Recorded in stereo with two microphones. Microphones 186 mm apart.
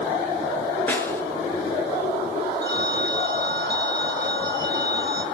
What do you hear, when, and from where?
0.9 s a snare drum: 10° left (ahead or behind), 5 m
2.6 s a phone ringing: 65° right (ahead or behind), 3 m